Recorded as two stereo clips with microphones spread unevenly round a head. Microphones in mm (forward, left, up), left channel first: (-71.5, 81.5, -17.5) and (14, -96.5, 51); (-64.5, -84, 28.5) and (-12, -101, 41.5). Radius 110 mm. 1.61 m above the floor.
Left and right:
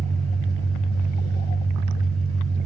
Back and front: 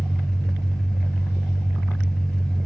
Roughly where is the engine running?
Behind right.